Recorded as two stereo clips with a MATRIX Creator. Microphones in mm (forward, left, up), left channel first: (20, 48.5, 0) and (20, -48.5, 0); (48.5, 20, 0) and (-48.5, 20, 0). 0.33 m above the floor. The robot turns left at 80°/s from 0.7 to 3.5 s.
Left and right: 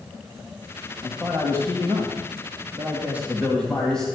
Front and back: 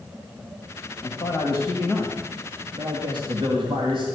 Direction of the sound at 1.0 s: 10° left.